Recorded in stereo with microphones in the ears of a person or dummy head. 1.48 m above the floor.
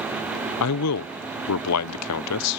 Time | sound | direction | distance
0.6 | a man speaking | 85° left | ?